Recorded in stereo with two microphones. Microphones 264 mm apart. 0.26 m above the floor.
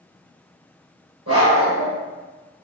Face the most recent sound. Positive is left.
turn(degrees=-60)  # may be behind; listen again after turning